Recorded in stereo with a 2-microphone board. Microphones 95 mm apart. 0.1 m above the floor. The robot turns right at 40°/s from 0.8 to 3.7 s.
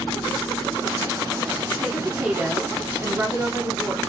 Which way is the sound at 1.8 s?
10° right (ahead or behind).